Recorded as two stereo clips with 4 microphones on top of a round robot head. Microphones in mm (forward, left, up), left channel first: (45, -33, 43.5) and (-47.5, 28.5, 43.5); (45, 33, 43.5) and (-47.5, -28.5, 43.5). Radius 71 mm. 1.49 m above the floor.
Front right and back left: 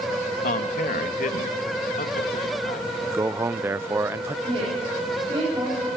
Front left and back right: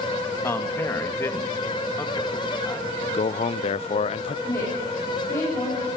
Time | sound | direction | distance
0.4 | a man speaking | 35° right | 2 m
3.1 | a man speaking | 75° left | 0.5 m
4.5 | a woman speaking | 100° left | 9.5 m